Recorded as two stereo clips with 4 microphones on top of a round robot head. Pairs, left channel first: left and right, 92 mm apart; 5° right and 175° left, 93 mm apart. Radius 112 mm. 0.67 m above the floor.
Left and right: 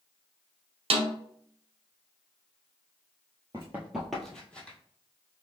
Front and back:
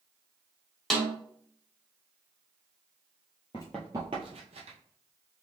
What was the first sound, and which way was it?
A snare drum, 95° right.